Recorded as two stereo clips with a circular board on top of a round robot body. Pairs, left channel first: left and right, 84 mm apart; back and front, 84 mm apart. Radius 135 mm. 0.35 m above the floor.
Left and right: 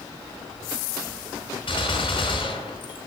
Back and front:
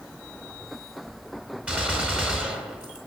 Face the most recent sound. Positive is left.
turn(degrees=75)